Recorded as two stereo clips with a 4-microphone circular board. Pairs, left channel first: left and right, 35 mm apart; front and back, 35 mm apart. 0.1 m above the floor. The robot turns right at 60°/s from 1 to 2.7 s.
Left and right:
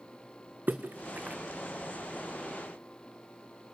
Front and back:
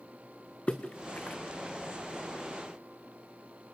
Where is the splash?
60° right, 1.6 m; by 1.4 s 35° right, 1.6 m.